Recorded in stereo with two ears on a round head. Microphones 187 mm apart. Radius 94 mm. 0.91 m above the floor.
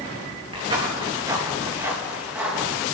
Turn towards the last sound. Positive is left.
turn(degrees=-5)  # may be behind; listen again after turning